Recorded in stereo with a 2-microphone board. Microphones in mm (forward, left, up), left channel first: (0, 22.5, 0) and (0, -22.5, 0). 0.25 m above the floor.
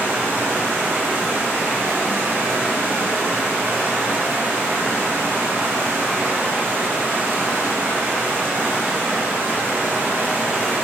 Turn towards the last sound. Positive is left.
turn(degrees=-50)  # may be behind; listen again after turning